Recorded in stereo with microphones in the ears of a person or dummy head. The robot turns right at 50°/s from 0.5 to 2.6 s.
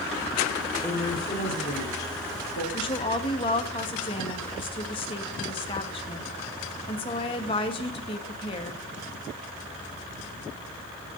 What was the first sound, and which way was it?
A woman speaking, 10° left.